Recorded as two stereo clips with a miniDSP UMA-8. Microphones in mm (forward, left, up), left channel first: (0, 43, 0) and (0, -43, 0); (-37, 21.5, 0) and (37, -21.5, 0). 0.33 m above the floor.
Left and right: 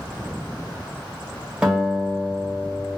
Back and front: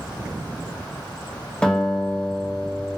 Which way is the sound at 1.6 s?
150° right.